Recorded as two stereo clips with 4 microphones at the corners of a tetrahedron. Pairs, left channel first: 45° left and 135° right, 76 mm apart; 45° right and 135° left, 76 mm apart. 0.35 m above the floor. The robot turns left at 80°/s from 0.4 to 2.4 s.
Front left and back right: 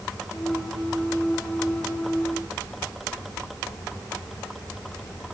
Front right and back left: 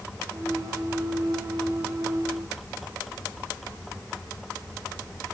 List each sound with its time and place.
Only background noise.